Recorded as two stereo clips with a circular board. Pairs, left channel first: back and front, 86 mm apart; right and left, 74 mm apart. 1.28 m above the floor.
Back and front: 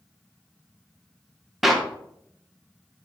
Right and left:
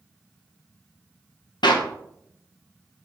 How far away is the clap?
About 0.8 m.